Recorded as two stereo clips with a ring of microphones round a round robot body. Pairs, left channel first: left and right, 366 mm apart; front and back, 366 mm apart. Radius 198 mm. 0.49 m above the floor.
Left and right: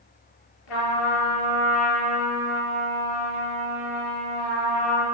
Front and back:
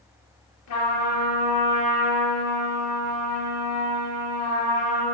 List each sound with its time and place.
0.7 s a trumpet: 55° left, 4 m